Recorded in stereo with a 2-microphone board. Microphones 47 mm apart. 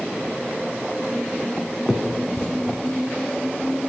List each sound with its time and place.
1.9 s a finger snap: 10° left (ahead or behind), 3.5 m